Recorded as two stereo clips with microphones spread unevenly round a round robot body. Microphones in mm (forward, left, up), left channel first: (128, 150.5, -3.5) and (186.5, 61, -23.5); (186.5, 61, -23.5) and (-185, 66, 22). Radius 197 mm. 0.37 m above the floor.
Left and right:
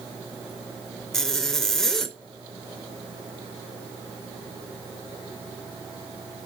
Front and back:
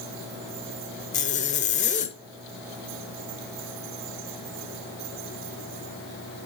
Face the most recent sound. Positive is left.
turn(degrees=20)